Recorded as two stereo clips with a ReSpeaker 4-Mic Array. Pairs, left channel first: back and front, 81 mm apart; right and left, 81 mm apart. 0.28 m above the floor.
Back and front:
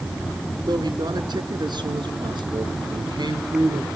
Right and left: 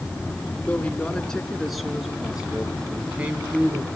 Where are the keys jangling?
I don't hear keys jangling.